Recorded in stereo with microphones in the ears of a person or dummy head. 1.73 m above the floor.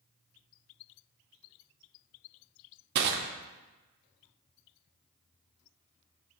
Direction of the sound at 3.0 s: 55° right (ahead or behind).